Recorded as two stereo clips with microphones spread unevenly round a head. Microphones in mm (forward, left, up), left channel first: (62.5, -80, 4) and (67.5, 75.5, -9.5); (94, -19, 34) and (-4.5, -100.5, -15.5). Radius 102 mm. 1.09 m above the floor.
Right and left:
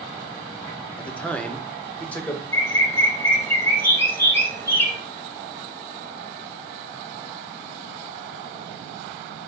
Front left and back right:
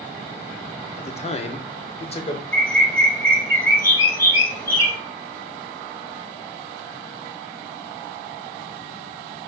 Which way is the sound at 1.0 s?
5° right.